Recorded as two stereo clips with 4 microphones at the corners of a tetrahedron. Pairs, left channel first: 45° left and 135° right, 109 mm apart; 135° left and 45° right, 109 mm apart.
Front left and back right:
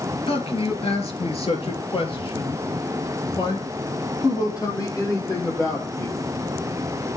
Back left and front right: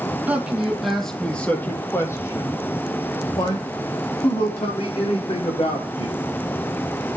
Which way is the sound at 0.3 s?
30° left.